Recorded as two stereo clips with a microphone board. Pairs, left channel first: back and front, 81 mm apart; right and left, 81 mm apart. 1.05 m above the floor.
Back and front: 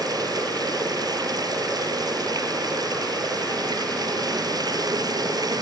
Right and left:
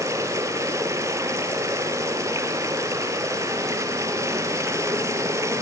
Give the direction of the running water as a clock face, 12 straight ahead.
11 o'clock.